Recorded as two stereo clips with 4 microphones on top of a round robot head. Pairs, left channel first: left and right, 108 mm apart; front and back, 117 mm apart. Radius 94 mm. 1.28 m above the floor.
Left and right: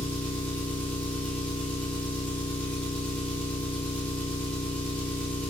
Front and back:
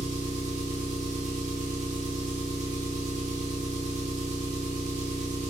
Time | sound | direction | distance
0.0 | an engine running | 170° left | 0.8 m